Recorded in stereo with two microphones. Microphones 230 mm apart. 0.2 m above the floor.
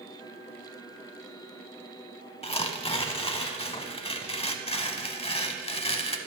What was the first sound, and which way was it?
Tearing paper, 25° left (ahead or behind).